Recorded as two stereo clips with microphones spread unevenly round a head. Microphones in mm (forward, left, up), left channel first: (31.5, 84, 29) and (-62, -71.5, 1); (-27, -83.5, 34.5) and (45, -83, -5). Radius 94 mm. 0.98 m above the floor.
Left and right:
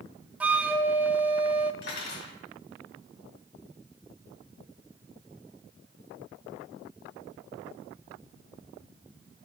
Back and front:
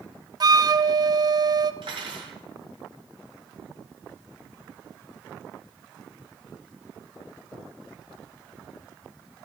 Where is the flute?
35° right, 0.5 m.